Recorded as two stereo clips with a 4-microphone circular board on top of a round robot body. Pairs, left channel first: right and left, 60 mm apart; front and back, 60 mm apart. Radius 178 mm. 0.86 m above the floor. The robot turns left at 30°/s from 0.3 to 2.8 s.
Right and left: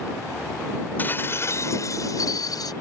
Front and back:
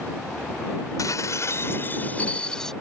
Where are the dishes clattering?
30° right; by 2.7 s 80° right.